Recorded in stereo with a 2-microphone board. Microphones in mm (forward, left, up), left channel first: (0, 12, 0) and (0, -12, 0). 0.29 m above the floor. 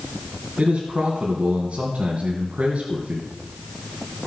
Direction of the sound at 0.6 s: 45° right (ahead or behind).